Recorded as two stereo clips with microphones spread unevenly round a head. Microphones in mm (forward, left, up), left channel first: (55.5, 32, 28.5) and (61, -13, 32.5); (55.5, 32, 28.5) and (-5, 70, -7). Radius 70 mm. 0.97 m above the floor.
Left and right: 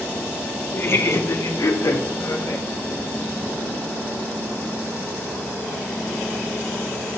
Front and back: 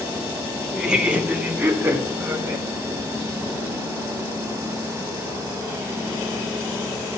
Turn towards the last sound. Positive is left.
turn(degrees=95)